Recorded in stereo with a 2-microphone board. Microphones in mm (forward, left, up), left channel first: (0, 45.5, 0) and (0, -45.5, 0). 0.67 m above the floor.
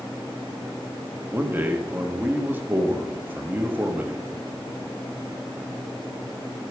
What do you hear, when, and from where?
1.3 s a man speaking: 20° right (ahead or behind), 1.0 m